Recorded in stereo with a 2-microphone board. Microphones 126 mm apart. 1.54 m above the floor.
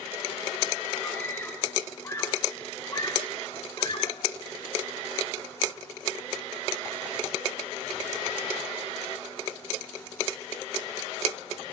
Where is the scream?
10° left (ahead or behind), 3.5 m; by 4.3 s 40° left (ahead or behind), 5 m.